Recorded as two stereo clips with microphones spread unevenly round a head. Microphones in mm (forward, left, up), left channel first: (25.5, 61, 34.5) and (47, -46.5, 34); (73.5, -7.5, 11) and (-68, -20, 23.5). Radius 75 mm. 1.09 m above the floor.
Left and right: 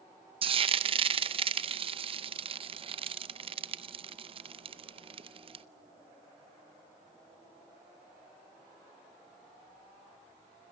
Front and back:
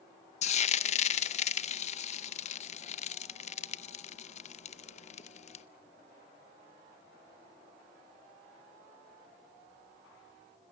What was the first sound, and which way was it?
Frying, 40° right.